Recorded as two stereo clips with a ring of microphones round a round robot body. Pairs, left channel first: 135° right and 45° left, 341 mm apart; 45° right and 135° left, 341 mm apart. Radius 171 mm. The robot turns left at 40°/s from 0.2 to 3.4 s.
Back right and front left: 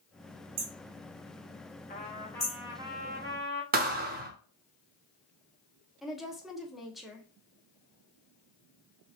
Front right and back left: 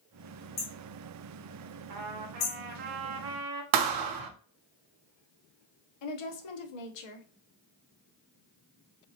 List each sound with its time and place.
0.6 s hammering: 20° left, 2.0 m; by 2.6 s 60° right, 2.0 m
1.9 s a trumpet: 160° left, 1.3 m; by 3.6 s 100° left, 1.3 m
3.7 s a thud: 110° left, 0.9 m
6.0 s a woman speaking: 45° right, 1.1 m